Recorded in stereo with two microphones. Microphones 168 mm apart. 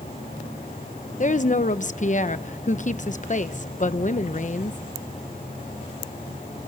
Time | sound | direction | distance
1.2 | a woman speaking | 50° left (ahead or behind) | 1.0 m